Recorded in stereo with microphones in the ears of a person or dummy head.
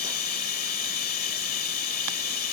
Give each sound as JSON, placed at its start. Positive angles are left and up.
{"t": 0.0, "sound": "running water", "side_deg": 55}